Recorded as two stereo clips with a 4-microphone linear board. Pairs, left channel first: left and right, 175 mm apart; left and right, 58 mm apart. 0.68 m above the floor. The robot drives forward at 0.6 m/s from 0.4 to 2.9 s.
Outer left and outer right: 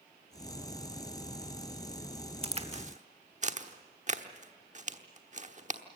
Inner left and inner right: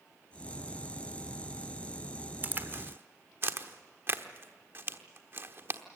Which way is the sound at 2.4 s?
35° right (ahead or behind).